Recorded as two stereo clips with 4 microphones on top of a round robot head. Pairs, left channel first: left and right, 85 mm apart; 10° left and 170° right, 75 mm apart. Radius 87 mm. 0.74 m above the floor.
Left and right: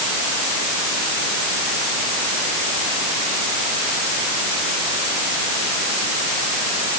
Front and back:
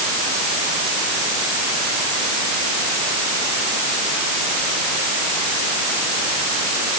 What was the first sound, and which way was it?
Only background noise.